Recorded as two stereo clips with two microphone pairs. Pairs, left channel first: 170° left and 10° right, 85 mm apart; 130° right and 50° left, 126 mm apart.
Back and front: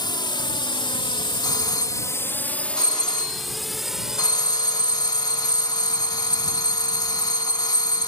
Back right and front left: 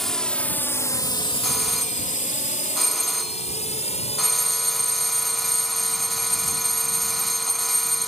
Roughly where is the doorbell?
Behind left.